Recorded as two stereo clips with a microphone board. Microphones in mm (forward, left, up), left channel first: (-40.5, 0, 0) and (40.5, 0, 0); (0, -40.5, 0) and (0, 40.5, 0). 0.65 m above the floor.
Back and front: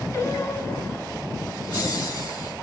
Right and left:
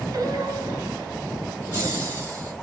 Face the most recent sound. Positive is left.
turn(degrees=145)